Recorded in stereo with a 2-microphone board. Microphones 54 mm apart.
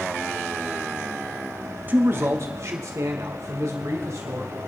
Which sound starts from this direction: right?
A man speaking, at 1.9 s.